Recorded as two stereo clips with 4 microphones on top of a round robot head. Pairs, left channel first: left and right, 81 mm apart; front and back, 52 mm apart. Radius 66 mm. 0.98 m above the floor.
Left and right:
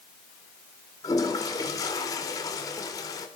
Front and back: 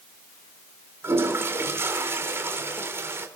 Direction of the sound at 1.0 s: 140° left.